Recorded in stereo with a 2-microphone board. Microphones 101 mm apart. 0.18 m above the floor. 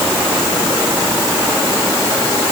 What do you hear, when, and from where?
Only background noise.